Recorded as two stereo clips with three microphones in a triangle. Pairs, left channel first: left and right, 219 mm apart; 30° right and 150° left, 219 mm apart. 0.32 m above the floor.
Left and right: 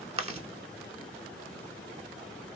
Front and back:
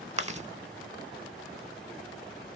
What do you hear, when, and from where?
0.2 s chewing: 150° right, 0.5 m